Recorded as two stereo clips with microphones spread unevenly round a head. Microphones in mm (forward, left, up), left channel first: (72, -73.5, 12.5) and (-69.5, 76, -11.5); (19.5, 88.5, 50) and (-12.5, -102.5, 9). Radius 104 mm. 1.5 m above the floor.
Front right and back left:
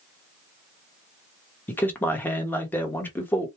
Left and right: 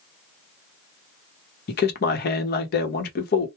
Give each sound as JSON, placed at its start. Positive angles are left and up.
{"t": 1.7, "sound": "a man speaking", "azimuth_deg": 35, "distance_m": 0.8}